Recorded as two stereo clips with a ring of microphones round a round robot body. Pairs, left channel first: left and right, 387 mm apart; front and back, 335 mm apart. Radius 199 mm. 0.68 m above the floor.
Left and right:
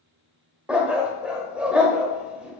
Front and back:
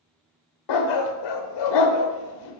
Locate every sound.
0.7 s a dog barking: 5° right, 0.8 m